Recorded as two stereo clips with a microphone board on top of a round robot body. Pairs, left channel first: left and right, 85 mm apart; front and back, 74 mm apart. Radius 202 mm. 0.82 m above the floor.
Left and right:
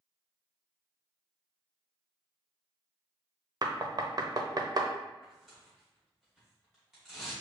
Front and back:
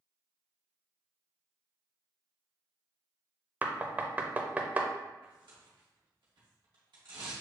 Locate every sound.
3.6 s knocking: 115° right, 0.9 m
5.2 s tearing paper: 175° right, 0.9 m